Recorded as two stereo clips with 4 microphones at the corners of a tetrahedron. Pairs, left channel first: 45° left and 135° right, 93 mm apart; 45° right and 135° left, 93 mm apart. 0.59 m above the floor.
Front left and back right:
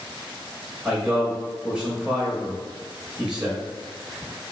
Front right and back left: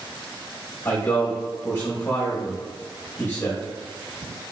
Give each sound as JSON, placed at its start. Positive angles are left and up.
{"t": 0.8, "sound": "a man speaking", "azimuth_deg": -65, "distance_m": 0.9}